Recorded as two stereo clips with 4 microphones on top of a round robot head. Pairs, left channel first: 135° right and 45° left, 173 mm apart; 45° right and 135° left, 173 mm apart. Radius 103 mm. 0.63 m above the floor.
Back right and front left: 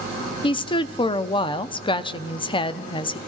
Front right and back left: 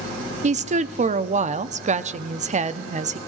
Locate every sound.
0.4 s a woman speaking: 170° left, 0.8 m